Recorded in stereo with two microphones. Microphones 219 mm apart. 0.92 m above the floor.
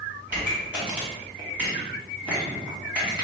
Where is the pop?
5° right (ahead or behind), 1.3 m.